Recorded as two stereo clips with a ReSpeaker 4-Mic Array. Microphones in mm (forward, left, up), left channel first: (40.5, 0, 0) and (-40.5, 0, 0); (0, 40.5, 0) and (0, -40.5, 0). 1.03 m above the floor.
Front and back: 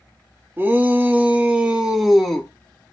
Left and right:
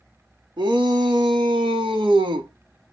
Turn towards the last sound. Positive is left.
turn(degrees=-80)